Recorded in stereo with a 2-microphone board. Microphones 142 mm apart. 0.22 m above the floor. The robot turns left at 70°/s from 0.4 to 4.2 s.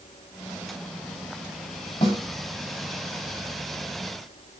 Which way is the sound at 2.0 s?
35° left (ahead or behind).